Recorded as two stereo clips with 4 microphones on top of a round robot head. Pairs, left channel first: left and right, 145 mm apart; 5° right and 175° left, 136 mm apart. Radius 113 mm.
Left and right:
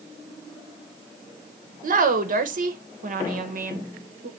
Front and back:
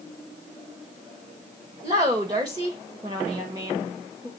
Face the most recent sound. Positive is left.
turn(degrees=-110)